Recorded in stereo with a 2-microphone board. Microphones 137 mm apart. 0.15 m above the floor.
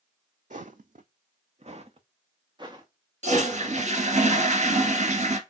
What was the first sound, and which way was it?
Footsteps, 70° right (ahead or behind).